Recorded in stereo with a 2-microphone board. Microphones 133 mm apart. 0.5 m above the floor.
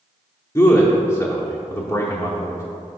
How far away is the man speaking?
About 0.8 m.